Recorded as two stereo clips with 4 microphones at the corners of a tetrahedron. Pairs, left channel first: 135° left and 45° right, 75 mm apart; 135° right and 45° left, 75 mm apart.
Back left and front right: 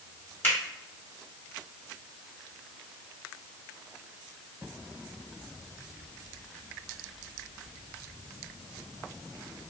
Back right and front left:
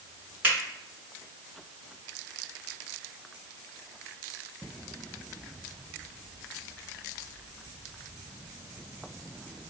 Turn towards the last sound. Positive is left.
turn(degrees=90)